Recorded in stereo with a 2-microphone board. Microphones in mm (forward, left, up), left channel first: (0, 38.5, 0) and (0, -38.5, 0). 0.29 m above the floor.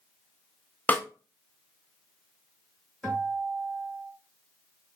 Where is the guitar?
10° left (ahead or behind), 2 m.